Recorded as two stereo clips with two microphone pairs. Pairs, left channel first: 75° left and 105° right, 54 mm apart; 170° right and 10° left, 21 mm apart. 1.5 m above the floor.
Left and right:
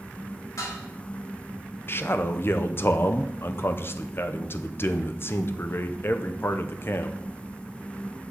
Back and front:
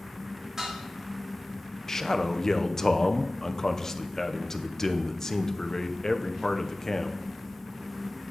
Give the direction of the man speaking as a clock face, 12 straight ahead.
8 o'clock.